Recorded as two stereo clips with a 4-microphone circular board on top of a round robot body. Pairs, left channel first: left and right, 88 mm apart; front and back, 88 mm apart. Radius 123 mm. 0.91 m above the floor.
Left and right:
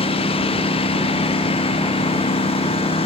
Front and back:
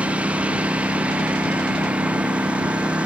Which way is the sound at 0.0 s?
100° left.